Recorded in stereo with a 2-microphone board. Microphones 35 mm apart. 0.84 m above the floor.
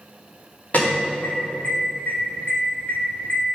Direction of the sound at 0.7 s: 45° left (ahead or behind).